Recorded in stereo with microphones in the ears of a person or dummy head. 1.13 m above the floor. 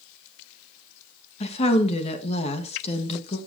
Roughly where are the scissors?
I don't hear scissors.